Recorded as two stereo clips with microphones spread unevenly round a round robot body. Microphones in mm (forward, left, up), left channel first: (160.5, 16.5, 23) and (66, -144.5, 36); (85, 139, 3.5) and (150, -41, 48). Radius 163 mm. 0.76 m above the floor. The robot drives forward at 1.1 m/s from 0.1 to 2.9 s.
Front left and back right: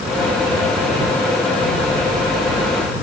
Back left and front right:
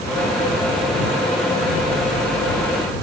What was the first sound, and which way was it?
Only background noise.